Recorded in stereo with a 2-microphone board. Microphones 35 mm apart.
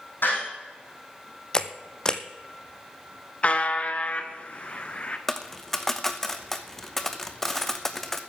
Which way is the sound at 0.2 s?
65° left (ahead or behind).